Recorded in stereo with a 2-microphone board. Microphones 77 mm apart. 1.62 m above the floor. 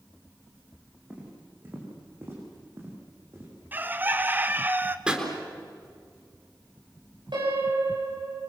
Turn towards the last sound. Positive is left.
turn(degrees=-75)  # may be behind; listen again after turning